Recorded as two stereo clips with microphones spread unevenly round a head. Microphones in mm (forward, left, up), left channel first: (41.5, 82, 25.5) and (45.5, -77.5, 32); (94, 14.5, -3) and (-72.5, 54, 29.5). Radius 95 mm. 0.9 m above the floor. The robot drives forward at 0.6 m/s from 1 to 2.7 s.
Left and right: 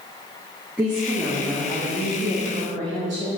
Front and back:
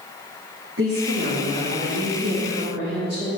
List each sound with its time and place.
0.8 s a woman speaking: 175° right, 1.9 m